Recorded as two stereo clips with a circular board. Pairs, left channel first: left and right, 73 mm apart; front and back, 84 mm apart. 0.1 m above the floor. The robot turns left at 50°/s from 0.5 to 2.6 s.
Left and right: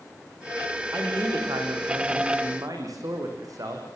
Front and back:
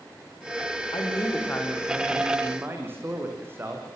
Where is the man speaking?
35° right, 6.5 m; by 3.9 s 120° right, 6.5 m.